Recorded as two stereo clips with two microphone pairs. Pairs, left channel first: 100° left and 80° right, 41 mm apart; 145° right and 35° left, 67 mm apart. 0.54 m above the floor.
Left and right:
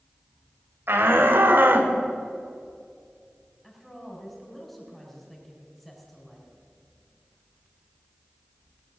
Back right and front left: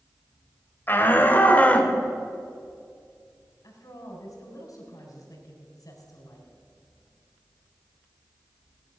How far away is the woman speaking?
About 4.5 m.